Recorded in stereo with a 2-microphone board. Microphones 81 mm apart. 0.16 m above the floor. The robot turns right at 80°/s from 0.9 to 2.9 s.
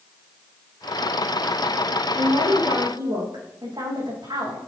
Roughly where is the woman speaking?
Behind right.